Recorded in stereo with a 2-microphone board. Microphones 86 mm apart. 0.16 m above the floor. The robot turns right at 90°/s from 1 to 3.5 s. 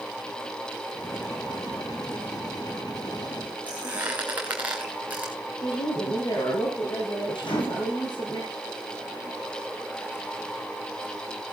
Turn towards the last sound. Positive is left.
turn(degrees=70)  # may be behind; listen again after turning